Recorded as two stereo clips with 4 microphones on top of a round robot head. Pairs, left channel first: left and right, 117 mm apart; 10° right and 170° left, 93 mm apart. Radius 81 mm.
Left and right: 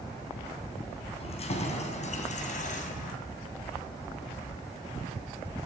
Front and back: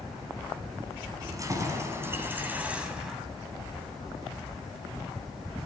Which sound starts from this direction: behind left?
Keys jangling, at 1.2 s.